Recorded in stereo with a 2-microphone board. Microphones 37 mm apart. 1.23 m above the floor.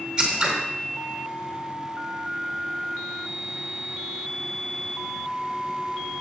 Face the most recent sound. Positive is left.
turn(degrees=-20)  # may be behind; listen again after turning